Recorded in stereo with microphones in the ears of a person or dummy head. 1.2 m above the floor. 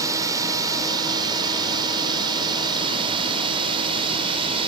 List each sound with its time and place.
0.0 s a drone: 20° right (ahead or behind); by 4.7 s 35° right (ahead or behind)